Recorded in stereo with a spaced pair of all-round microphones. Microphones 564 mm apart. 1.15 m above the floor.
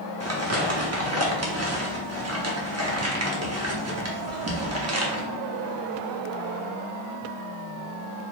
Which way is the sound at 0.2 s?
30° right (ahead or behind).